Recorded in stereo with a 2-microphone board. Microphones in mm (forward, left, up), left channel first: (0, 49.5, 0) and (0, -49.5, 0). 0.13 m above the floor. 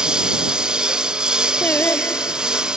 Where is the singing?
20° left (ahead or behind).